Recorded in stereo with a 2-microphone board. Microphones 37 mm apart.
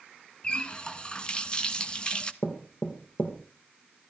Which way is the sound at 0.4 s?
25° left (ahead or behind).